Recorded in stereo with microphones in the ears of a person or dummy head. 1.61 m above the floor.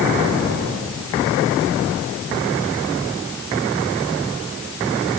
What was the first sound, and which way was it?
Only background noise.